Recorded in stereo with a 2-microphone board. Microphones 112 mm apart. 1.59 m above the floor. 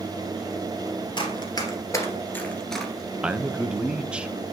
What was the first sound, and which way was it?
Running footsteps, 45° left (ahead or behind).